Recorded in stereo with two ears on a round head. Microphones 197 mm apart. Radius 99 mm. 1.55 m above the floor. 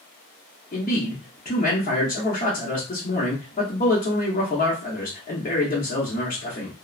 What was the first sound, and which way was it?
A man speaking, 35° left (ahead or behind).